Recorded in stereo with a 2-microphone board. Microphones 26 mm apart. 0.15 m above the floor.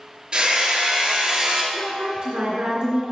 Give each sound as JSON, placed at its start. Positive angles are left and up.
{"t": 0.3, "sound": "hammering", "side_deg": -35, "distance_m": 2.5}
{"t": 1.7, "sound": "a woman speaking", "side_deg": -50, "distance_m": 2.5}